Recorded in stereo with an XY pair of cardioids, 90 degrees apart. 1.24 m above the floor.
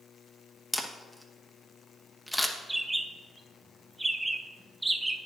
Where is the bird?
10° right, 0.7 m.